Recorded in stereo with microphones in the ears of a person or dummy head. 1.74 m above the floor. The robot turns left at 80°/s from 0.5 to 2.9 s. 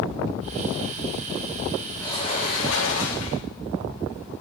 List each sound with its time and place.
2.0 s a sliding door: 170° left, 4 m; by 3.5 s 95° left, 4 m